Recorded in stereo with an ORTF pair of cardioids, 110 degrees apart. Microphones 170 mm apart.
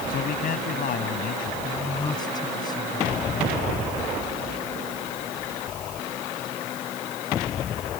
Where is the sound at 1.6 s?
25° left.